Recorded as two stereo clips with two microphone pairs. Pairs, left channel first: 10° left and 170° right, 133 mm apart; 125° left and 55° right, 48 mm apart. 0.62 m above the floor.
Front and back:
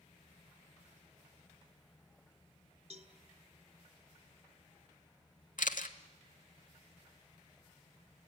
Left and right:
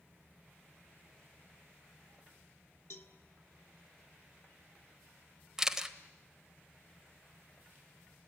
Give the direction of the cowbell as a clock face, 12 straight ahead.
7 o'clock.